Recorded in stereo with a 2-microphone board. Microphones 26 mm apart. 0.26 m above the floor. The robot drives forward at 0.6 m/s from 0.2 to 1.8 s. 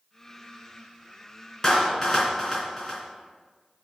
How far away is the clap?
About 2.5 m.